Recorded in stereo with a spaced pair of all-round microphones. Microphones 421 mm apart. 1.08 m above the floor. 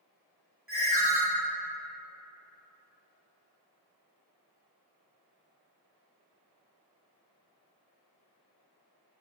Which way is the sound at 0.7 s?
35° right (ahead or behind).